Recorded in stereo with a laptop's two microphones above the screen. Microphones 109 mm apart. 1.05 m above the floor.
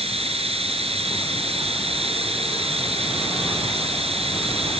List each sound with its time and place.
0.0 s running water: 65° right (ahead or behind)